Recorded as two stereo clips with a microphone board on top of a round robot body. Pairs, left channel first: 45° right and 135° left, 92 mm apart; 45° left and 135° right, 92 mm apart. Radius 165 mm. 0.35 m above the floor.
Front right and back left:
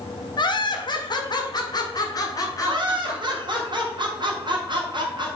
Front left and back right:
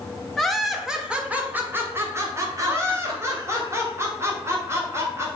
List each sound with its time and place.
0.4 s laughter: 40° right, 1.6 m; by 3.6 s 100° right, 2 m
2.6 s laughter: 165° left, 2 m